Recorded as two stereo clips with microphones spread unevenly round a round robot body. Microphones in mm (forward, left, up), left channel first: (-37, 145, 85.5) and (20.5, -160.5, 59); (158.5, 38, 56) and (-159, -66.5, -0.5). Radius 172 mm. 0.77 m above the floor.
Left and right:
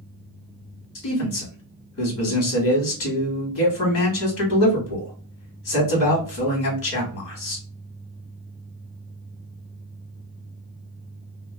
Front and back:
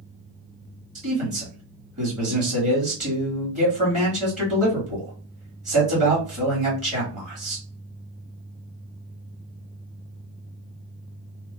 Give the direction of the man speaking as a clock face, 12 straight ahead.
7 o'clock.